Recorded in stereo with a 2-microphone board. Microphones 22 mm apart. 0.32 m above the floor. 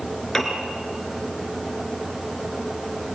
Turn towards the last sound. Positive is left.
turn(degrees=15)  # may be behind; listen again after turning